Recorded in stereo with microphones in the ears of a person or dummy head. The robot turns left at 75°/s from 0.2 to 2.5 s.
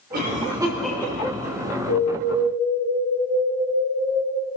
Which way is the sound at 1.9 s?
95° left.